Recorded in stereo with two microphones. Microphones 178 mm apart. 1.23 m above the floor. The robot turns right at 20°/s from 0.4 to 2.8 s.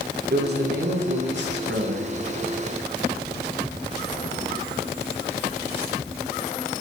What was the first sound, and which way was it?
A man speaking, 115° right.